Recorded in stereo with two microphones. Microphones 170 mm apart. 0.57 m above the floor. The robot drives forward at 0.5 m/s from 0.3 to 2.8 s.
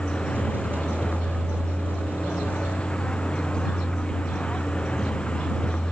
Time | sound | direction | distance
0.0 | a vehicle | 5° left (ahead or behind) | ?